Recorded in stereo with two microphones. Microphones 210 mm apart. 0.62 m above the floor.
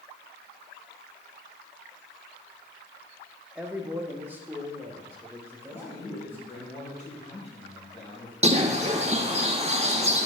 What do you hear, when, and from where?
3.5 s a man speaking: 5° right (ahead or behind), 0.8 m; by 6.7 s 10° right (ahead or behind), 3 m
5.7 s a man speaking: 30° left (ahead or behind), 3.5 m
8.4 s a bird: 30° right (ahead or behind), 0.8 m